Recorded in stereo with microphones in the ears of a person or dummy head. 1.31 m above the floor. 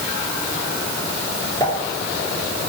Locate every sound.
1.6 s a pop: 20° left (ahead or behind), 4.5 m